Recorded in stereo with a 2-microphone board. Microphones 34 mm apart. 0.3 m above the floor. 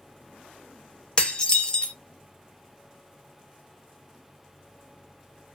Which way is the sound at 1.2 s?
25° left (ahead or behind).